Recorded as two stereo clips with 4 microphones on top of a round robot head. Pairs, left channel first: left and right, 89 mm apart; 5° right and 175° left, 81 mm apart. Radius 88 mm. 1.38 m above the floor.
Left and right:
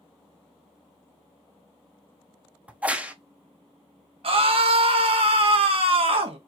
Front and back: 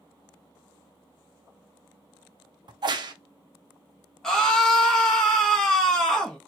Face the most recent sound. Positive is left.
turn(degrees=-85)